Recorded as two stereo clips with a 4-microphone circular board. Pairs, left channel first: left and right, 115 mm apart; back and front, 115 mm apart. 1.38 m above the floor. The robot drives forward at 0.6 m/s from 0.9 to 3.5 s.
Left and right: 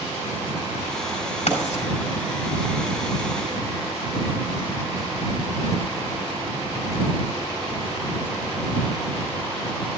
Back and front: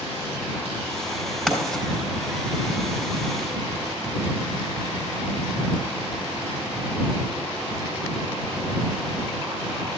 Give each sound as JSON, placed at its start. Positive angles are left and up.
{"t": 1.5, "sound": "writing", "azimuth_deg": 95, "distance_m": 3.5}